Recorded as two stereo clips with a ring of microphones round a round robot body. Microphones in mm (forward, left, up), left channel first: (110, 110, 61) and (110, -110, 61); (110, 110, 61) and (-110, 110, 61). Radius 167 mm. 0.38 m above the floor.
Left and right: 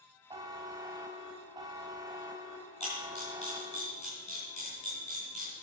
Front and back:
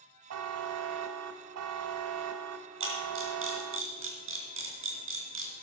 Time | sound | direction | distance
0.3 | a buzzer | 165° right | 0.6 m
2.8 | a camera shutter | 155° left | 3.5 m